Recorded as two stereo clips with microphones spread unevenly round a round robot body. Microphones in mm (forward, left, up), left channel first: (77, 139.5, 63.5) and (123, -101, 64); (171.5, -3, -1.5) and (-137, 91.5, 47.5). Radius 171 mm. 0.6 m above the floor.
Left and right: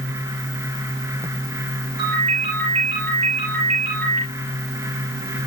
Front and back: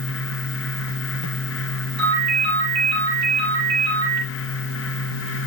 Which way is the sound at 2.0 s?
145° right.